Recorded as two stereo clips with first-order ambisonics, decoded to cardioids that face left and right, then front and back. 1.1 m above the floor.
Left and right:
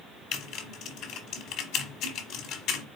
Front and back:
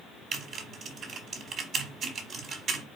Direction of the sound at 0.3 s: 125° left.